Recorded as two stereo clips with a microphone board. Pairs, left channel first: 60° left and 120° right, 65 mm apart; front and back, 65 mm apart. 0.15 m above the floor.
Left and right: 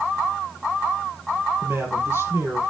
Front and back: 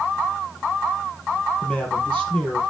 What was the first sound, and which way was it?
A man speaking, 70° right.